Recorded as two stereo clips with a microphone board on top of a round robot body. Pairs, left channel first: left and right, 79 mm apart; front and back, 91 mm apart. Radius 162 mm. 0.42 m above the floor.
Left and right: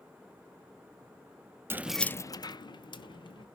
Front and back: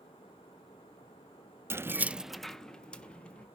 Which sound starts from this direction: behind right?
Keys jangling, at 1.7 s.